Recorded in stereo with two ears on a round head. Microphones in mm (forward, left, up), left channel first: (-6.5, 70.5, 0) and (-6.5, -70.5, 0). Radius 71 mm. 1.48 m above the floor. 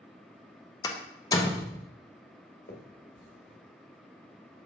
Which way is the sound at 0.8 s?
25° left (ahead or behind).